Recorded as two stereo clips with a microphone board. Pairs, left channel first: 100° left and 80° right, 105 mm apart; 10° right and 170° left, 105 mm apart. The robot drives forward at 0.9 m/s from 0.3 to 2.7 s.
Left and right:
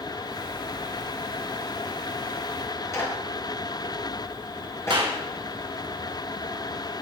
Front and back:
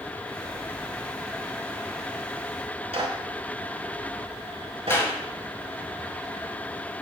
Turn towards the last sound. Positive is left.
turn(degrees=-75)